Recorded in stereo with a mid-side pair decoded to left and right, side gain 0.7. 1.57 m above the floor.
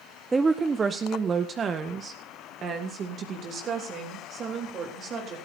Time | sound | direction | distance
0.3 | a woman speaking | 15° right | 1.0 m